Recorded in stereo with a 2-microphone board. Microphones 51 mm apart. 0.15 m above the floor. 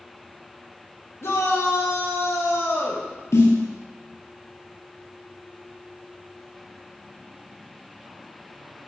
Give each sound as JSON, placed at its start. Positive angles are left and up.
{"t": 1.2, "sound": "a shout", "side_deg": 65, "distance_m": 4.5}
{"t": 3.3, "sound": "a snare drum", "side_deg": 65, "distance_m": 2.5}